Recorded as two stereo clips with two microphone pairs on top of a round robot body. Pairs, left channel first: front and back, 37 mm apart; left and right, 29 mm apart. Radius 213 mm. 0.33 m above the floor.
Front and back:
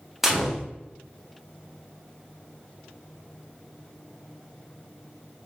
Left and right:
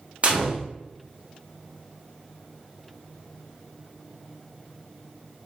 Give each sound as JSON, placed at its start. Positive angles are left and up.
{"t": 0.2, "sound": "a gunshot", "azimuth_deg": -100, "distance_m": 1.5}